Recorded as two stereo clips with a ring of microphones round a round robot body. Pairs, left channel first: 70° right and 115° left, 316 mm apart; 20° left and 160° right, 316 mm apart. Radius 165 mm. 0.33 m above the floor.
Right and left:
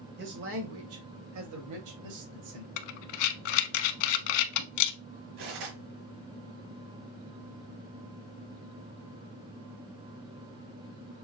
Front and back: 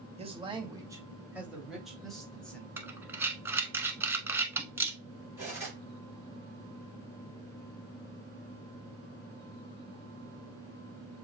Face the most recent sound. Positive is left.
turn(degrees=120)